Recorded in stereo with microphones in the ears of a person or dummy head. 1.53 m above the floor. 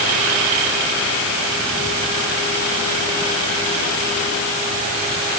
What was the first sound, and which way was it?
Only background noise.